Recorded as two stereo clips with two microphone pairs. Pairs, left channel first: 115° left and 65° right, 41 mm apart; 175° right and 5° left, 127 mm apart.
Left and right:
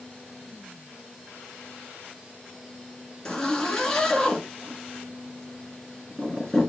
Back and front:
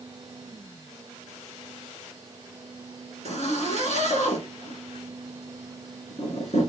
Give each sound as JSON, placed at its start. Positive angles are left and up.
{"t": 3.2, "sound": "a zipper", "azimuth_deg": -175, "distance_m": 1.8}